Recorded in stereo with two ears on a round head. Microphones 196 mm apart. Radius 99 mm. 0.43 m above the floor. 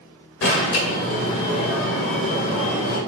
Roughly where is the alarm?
Left.